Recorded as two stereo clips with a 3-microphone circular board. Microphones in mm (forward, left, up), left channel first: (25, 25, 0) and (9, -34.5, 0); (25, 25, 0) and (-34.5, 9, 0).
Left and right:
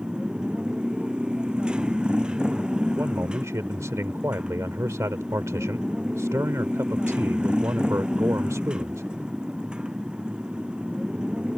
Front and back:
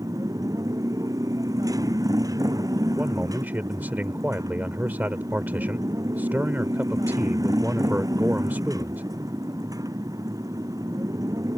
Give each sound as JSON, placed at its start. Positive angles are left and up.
{"t": 0.0, "sound": "a motorcycle", "azimuth_deg": 180}
{"t": 3.0, "sound": "a man speaking", "azimuth_deg": -115}